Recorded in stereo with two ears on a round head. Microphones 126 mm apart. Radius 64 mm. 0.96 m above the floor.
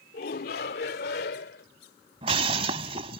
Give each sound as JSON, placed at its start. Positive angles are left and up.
{"t": 0.1, "sound": "a shout", "side_deg": 70}
{"t": 2.2, "sound": "breaking glass", "side_deg": -40}